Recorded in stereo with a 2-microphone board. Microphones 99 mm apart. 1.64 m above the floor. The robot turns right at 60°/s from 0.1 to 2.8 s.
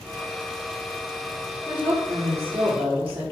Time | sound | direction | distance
1.7 | a woman speaking | 160° right | 1.2 m